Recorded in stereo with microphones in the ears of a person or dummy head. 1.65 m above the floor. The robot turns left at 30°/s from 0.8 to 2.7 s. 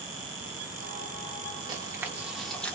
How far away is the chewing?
About 0.7 m.